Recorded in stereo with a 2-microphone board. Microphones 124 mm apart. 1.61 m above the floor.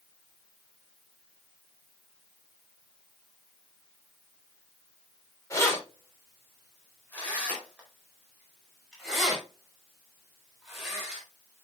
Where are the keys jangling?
25° left (ahead or behind), 3.5 m; by 11.2 s 5° right (ahead or behind), 7 m.